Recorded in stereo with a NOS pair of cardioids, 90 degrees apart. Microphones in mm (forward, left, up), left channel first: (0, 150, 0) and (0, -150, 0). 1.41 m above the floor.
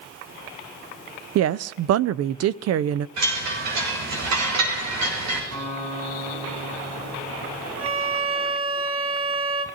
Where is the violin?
45° right, 1.8 m.